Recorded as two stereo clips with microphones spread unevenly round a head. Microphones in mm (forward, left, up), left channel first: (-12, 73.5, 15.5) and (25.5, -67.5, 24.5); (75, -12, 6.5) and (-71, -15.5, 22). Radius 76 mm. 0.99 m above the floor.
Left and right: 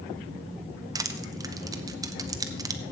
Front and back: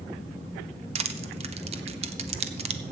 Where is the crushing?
140° right, 0.9 m.